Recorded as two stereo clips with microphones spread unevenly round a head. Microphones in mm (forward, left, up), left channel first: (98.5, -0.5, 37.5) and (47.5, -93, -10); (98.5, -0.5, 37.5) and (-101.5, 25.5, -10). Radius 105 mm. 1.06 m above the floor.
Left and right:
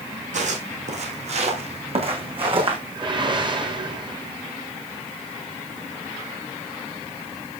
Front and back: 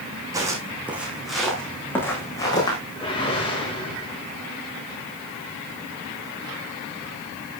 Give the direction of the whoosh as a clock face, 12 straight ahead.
2 o'clock.